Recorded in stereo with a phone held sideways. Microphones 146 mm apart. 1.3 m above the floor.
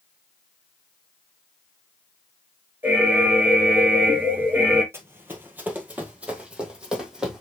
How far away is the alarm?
About 2.5 m.